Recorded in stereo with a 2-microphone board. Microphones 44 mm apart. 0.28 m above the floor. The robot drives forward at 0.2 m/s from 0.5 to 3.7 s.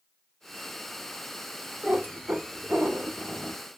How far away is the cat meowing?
About 1.5 m.